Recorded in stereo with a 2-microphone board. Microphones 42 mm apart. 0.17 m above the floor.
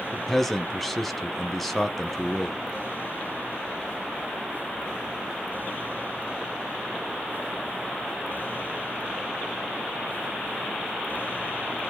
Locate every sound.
0.1 s a man speaking: 5° left (ahead or behind), 1.0 m